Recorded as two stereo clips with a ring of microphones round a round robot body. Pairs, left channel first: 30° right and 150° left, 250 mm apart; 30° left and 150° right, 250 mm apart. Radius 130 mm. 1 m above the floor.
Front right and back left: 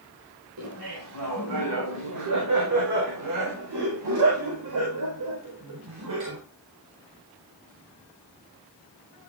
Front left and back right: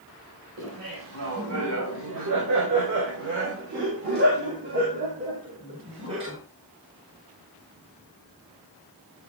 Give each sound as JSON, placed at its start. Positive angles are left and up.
{"t": 0.6, "sound": "laughter", "azimuth_deg": 175, "distance_m": 5.0}